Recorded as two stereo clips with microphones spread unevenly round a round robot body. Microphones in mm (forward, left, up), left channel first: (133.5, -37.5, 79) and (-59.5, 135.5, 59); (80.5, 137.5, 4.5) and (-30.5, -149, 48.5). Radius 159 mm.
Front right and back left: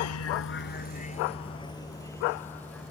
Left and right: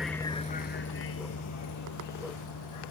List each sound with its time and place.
0.0 s a vehicle: 25° right; by 2.9 s 45° left